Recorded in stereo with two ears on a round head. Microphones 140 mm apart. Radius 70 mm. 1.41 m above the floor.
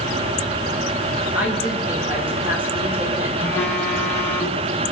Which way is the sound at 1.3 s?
15° right (ahead or behind).